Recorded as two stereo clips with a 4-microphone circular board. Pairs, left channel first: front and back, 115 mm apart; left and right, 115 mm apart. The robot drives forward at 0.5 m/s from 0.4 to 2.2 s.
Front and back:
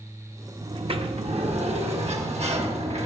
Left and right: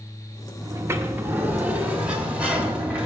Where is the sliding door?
150° right, 0.6 m; by 3.1 s 170° right, 1.3 m.